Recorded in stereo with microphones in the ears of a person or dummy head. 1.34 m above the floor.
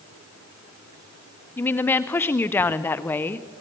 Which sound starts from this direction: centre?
A woman speaking, at 1.6 s.